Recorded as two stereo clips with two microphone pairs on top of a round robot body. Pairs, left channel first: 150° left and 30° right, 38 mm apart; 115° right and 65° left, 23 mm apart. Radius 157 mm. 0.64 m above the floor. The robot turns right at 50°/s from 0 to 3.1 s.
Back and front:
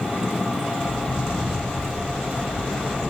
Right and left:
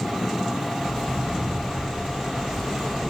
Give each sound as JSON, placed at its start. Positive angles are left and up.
{"t": 0.8, "sound": "footsteps", "azimuth_deg": -135, "distance_m": 7.5}